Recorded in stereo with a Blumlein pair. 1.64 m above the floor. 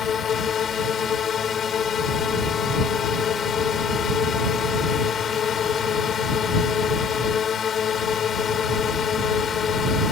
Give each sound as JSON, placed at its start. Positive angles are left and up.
{"t": 0.0, "sound": "a drone", "azimuth_deg": 25}